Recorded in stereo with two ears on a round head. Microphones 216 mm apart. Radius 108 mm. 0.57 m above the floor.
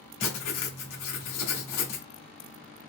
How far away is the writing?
About 1.5 m.